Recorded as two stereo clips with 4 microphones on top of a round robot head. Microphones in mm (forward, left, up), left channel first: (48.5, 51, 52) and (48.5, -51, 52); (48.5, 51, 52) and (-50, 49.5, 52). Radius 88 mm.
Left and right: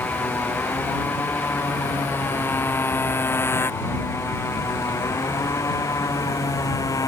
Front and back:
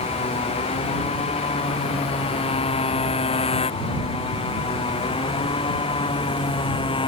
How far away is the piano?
No piano in this recording.